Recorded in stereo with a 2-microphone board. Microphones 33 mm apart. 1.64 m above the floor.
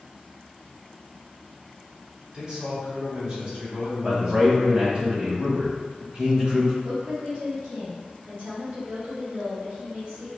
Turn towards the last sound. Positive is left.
turn(degrees=-75)  # may be behind; listen again after turning